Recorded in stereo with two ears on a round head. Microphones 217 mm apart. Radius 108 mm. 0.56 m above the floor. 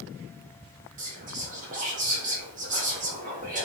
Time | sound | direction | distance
1.0 | whispering | 35° right (ahead or behind) | 1.1 m